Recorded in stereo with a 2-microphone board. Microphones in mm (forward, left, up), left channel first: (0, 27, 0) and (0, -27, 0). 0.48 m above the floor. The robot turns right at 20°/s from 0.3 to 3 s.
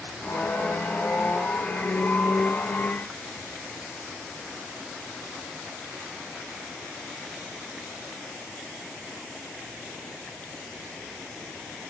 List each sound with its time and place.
Only background noise.